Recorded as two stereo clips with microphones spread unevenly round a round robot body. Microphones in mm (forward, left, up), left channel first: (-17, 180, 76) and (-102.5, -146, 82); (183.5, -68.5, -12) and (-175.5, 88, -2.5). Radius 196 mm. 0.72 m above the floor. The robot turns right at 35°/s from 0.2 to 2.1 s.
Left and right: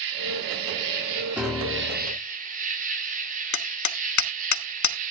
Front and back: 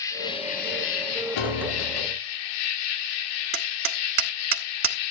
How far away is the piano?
About 1.5 m.